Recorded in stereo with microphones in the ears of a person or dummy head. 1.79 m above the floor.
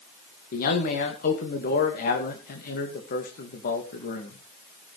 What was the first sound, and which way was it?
A man speaking, 50° left (ahead or behind).